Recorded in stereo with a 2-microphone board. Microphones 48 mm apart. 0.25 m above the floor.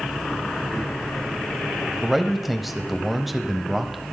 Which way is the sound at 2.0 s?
Centre (ahead or behind).